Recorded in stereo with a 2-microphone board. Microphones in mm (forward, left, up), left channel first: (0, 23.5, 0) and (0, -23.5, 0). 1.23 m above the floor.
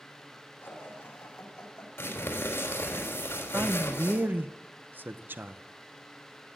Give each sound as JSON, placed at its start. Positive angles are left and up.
{"t": 0.6, "sound": "laughter", "side_deg": 40, "distance_m": 6.5}
{"t": 2.0, "sound": "crumpling", "side_deg": 50, "distance_m": 4.5}
{"t": 3.5, "sound": "a man speaking", "side_deg": -45, "distance_m": 0.7}